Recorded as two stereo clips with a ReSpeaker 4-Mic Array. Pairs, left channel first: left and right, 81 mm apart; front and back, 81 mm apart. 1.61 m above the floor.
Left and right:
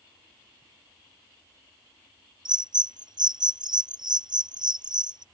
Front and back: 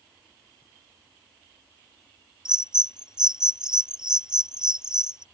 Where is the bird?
100° right.